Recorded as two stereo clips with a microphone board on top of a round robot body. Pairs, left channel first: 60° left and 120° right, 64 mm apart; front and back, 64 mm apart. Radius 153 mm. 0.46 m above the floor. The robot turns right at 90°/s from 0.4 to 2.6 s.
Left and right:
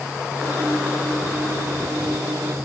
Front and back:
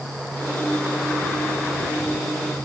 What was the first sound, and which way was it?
Only background noise.